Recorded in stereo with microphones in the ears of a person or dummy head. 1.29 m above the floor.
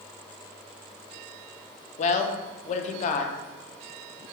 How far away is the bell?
I don't hear a bell.